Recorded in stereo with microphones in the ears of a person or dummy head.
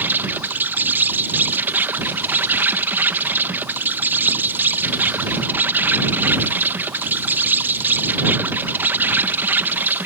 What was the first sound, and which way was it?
An insect, 10° right (ahead or behind).